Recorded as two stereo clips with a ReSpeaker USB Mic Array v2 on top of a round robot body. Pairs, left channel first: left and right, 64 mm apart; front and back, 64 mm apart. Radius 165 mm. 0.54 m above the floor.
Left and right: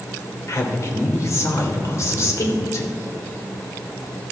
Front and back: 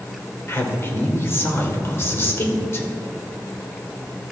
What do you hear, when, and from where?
0.5 s a man speaking: 50° left, 2.5 m